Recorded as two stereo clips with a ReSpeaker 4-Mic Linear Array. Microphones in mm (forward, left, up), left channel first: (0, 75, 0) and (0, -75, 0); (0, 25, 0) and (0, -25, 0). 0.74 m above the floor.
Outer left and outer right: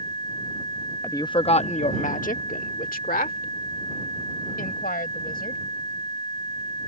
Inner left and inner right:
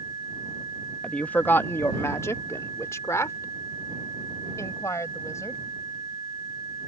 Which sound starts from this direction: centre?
A woman speaking, at 1.0 s.